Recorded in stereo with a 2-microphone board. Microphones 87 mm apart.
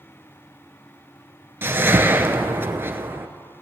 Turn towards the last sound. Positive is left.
turn(degrees=-30)  # may be behind; listen again after turning